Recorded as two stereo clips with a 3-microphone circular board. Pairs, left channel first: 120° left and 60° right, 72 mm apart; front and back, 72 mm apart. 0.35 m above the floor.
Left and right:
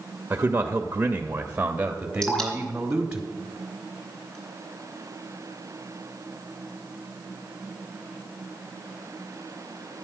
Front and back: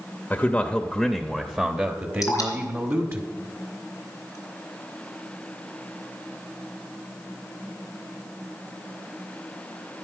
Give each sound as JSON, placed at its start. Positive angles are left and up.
{"t": 0.3, "sound": "a man speaking", "azimuth_deg": -35, "distance_m": 0.9}
{"t": 2.2, "sound": "dripping", "azimuth_deg": 40, "distance_m": 4.0}